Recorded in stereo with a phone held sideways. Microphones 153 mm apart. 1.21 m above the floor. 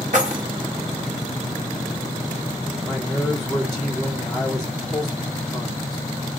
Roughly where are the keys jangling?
Right.